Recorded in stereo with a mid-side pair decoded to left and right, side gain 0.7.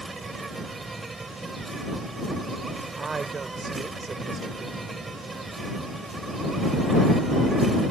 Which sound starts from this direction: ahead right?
A woman speaking, at 3.0 s.